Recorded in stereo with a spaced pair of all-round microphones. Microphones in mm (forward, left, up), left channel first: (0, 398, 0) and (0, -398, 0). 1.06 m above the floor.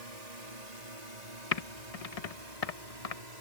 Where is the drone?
55° right (ahead or behind); by 3.4 s 60° right (ahead or behind).